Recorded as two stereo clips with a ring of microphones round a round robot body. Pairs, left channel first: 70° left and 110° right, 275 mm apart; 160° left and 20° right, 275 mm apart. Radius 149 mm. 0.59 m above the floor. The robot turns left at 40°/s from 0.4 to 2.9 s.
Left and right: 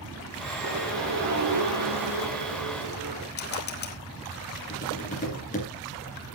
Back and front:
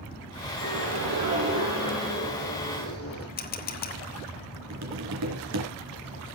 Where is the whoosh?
55° right, 6.5 m; by 3.3 s 150° right, 6.5 m.